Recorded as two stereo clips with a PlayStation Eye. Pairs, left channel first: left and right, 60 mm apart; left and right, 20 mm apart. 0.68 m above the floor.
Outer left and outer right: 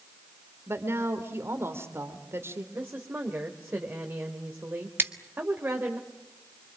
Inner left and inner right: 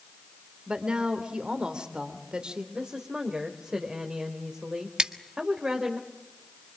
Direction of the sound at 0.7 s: 45° right (ahead or behind).